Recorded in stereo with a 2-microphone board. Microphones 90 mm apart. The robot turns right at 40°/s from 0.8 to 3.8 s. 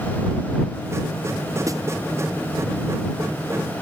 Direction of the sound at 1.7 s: 35° right (ahead or behind).